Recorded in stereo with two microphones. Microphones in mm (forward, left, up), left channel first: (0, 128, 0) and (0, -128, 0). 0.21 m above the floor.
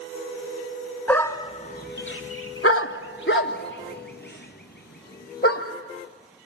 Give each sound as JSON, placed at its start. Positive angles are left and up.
{"t": 1.1, "sound": "a dog barking", "side_deg": 5, "distance_m": 0.9}